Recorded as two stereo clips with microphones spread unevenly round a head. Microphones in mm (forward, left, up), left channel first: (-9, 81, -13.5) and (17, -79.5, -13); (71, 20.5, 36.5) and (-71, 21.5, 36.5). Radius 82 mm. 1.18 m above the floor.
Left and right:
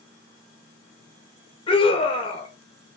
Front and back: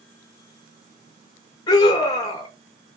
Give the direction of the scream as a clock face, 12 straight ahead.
10 o'clock.